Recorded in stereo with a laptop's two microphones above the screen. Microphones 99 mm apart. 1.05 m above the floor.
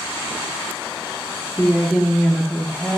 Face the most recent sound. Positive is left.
turn(degrees=15)  # may be behind; listen again after turning